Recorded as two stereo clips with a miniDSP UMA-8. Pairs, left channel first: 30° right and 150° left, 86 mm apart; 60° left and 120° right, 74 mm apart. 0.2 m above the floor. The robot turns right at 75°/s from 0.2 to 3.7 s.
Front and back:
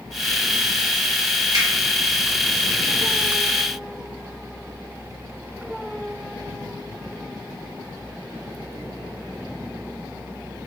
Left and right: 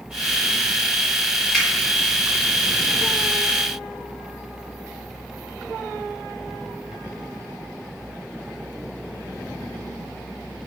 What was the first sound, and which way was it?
A finger snap, 145° left.